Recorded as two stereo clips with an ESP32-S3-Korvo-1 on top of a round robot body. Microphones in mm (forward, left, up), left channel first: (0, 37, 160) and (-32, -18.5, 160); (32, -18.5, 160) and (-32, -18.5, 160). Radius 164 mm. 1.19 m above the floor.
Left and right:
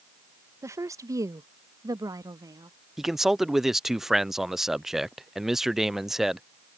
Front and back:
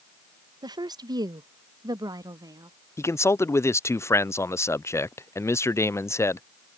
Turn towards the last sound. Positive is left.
turn(degrees=-35)